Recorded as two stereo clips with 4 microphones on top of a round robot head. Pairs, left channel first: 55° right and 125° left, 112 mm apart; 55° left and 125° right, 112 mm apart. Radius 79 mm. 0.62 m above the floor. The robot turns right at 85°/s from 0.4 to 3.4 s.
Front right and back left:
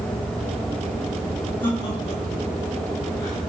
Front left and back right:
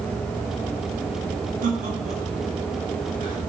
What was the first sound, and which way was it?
Laughter, 135° right.